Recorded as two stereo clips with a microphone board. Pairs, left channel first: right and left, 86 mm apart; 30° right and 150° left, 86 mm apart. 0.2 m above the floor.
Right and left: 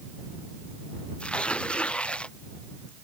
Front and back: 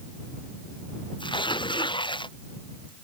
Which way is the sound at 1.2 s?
10° right.